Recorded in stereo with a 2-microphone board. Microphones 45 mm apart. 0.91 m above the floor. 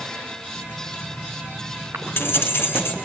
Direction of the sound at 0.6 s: 65° left (ahead or behind).